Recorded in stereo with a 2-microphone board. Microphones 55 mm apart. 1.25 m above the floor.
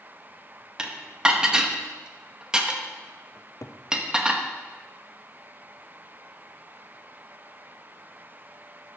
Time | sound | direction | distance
0.8 | dishes clattering | 15° right (ahead or behind) | 0.9 m
3.4 | a cupboard door | 60° left (ahead or behind) | 0.6 m